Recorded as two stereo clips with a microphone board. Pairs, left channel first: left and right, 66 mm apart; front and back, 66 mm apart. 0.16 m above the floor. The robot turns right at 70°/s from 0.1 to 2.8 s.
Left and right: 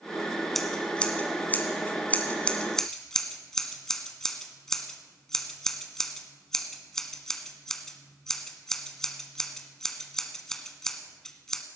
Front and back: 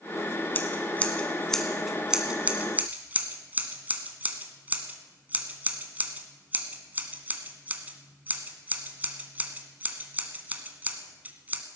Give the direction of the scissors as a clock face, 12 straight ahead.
12 o'clock.